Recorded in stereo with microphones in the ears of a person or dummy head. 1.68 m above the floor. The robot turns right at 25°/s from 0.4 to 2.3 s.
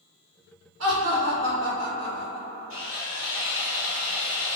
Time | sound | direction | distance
0.8 | laughter | 85° right | 1.1 m
2.7 | sawing | 65° right (ahead or behind) | 1.3 m